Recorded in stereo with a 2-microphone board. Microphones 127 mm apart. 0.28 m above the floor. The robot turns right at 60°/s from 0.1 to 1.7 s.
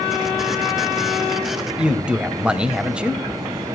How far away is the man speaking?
About 1.0 m.